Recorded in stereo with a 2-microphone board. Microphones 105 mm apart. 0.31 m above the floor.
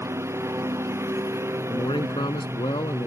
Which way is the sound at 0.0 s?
25° right (ahead or behind).